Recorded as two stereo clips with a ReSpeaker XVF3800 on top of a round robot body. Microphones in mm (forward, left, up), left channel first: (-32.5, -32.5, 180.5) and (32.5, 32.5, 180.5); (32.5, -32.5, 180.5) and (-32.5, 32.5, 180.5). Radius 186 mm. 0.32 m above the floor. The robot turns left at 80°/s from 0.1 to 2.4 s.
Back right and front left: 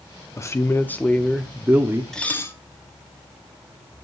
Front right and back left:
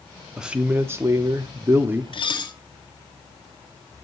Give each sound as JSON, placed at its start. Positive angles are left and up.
{"t": 0.4, "sound": "a man speaking", "azimuth_deg": -145, "distance_m": 1.1}
{"t": 2.1, "sound": "dishes clattering", "azimuth_deg": -50, "distance_m": 1.3}